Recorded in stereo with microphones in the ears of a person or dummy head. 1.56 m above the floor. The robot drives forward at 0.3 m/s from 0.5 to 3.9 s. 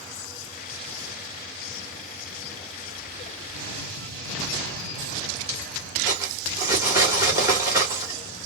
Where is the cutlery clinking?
15° right (ahead or behind), 1.5 m.